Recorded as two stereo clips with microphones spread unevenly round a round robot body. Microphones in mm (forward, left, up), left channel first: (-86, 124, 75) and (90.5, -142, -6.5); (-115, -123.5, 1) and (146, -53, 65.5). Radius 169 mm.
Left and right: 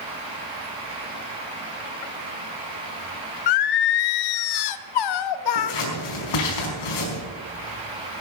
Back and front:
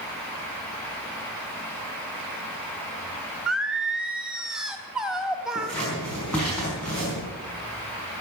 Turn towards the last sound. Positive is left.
turn(degrees=110)